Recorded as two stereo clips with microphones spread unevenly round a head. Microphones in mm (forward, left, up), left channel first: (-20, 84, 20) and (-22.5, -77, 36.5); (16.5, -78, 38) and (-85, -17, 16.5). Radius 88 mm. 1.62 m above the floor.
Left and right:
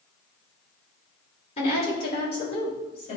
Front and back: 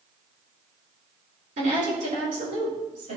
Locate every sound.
1.6 s a woman speaking: 140° left, 3.5 m